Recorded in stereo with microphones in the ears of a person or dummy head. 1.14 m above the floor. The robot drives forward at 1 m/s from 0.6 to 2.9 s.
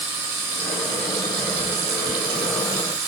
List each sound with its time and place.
0.0 s running water: 50° right (ahead or behind), 2.5 m; by 3.1 s 65° right (ahead or behind), 1.9 m